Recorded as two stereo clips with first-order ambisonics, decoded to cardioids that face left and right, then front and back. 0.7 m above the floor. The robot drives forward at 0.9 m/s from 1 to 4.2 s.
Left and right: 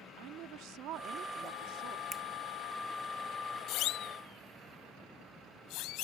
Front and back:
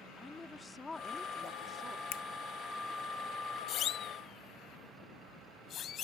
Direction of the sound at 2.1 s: 10° right.